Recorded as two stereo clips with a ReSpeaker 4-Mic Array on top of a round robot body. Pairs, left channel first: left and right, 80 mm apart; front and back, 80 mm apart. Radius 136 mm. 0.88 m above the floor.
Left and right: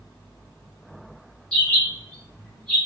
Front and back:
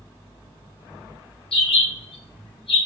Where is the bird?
10° left, 1.0 m.